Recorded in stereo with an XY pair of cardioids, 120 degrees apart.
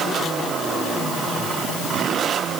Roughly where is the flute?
No flute in this recording.